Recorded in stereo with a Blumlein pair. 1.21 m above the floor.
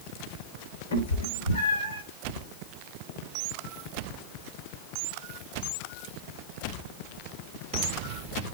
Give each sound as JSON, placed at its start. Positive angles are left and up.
{"t": 0.9, "sound": "a cat meowing", "azimuth_deg": 65, "distance_m": 2.0}